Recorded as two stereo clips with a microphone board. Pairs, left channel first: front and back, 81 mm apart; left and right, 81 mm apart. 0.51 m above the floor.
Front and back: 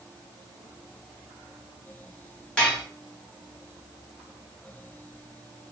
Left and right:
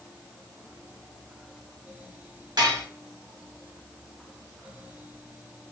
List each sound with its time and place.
2.6 s dishes clattering: 80° right, 1.0 m